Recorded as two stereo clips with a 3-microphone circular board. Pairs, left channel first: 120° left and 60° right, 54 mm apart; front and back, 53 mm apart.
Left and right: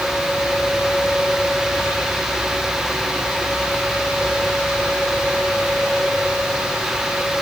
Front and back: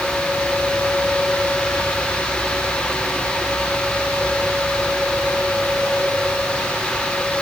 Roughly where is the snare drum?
No snare drum in this recording.